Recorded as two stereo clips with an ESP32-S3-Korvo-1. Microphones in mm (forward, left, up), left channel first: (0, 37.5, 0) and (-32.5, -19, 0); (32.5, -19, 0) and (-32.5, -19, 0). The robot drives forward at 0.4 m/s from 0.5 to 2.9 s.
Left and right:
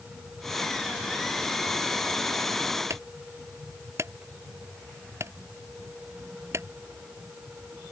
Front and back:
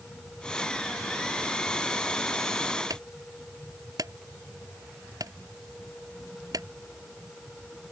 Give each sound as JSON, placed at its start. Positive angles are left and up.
{"t": 2.9, "sound": "a clunk", "azimuth_deg": -160}